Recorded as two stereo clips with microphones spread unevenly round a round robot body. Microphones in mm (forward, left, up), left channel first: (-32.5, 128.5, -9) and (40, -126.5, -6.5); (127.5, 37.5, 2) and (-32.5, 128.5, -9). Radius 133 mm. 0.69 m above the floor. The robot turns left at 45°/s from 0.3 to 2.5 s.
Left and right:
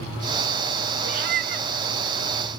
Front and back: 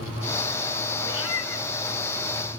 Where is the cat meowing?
60° right, 4.5 m; by 1.7 s 85° right, 4.5 m.